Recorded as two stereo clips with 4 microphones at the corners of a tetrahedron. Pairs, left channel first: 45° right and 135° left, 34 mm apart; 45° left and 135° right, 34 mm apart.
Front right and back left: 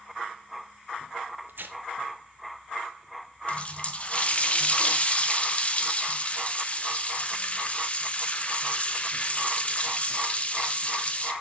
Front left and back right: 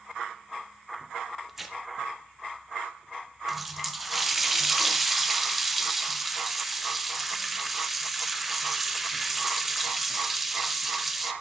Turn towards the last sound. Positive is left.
turn(degrees=-50)